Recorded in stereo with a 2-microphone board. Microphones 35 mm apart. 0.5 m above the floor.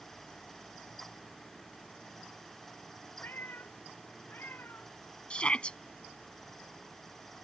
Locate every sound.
3.2 s a cat meowing: 65° left (ahead or behind); by 4.9 s 70° left (ahead or behind)
5.3 s a shout: 35° left (ahead or behind)